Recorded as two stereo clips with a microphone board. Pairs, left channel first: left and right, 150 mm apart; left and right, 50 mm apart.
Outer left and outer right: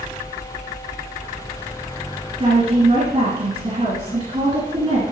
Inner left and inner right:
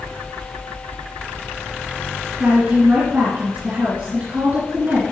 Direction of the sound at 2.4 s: 45° right (ahead or behind).